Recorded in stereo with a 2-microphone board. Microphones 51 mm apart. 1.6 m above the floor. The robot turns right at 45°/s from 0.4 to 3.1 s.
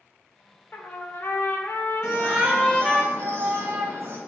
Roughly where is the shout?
Behind.